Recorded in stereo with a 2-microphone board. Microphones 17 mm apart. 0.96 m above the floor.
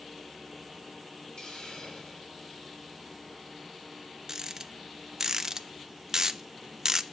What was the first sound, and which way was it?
A hiss, 45° left (ahead or behind).